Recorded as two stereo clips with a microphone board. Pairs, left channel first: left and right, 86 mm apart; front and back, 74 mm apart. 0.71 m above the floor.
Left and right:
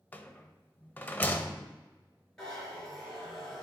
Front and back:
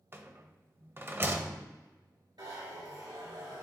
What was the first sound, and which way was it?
A rattle, 145° left.